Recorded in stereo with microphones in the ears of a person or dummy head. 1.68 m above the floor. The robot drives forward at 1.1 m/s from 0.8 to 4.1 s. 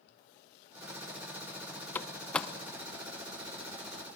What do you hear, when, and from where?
1.9 s a door slam: 15° left (ahead or behind), 0.8 m; by 2.5 s 10° left (ahead or behind), 1.4 m